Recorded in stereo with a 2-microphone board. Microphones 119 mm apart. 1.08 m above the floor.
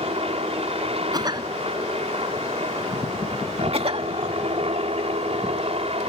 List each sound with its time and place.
0.0 s a helicopter: 55° right (ahead or behind)
1.1 s a cough: 35° right (ahead or behind)
3.7 s a cough: 55° right (ahead or behind)